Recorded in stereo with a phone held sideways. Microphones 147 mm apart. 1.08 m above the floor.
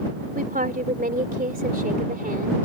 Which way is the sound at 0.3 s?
75° right (ahead or behind).